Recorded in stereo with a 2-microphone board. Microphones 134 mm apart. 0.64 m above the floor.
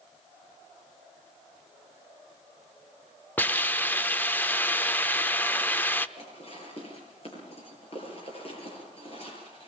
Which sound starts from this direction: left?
Dishes clattering, at 6.2 s.